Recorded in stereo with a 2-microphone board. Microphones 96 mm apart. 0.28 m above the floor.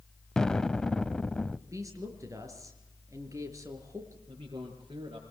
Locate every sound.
0.4 s an explosion: 10° left (ahead or behind), 0.6 m
1.7 s a woman speaking: 35° right (ahead or behind), 4 m
4.3 s a man speaking: 65° right (ahead or behind), 5 m